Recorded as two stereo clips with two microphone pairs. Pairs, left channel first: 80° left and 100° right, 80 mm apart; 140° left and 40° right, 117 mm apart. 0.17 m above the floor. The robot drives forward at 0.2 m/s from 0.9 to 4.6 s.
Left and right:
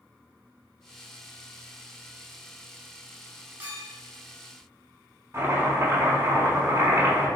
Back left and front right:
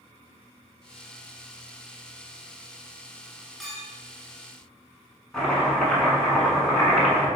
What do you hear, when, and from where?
3.6 s a clink: 135° right, 0.8 m; by 3.9 s 140° right, 0.9 m
5.3 s chopping: 140° right, 0.9 m